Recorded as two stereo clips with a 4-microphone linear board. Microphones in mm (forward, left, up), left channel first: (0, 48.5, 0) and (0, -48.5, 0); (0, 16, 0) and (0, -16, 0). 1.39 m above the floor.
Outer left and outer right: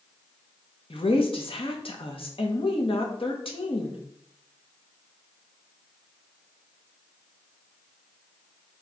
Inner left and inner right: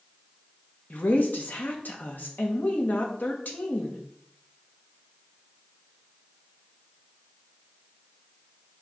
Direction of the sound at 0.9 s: 65° left (ahead or behind).